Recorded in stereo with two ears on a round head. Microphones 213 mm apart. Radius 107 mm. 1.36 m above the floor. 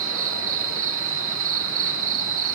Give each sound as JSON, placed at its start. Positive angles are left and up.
{"t": 0.0, "sound": "an insect", "side_deg": -60, "distance_m": 0.8}